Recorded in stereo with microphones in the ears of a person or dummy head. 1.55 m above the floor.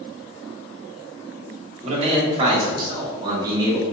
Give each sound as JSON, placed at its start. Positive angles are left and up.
{"t": 1.8, "sound": "a man speaking", "side_deg": -40, "distance_m": 1.3}